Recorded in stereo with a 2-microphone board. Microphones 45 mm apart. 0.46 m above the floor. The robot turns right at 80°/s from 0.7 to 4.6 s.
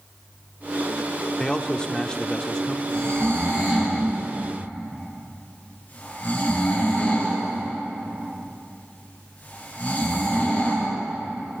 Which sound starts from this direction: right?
Snoring, at 2.9 s.